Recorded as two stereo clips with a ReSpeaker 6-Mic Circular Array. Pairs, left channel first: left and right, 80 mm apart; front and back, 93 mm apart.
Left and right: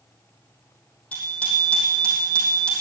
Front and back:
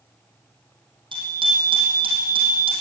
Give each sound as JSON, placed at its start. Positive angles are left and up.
{"t": 1.1, "sound": "a bicycle bell", "azimuth_deg": 160, "distance_m": 4.5}